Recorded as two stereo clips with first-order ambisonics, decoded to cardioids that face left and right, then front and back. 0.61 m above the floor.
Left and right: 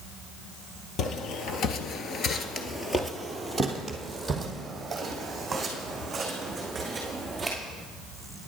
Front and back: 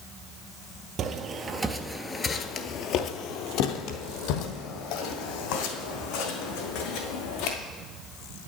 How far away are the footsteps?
About 0.9 m.